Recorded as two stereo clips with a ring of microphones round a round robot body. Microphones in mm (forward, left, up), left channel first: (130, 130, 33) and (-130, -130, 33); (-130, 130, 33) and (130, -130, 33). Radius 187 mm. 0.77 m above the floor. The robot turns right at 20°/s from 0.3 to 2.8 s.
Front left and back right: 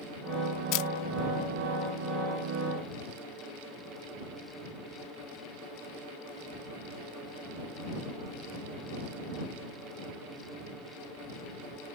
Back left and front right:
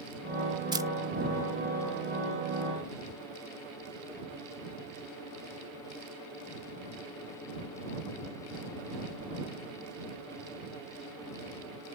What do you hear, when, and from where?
0.7 s a camera shutter: 35° left; by 0.9 s 40° left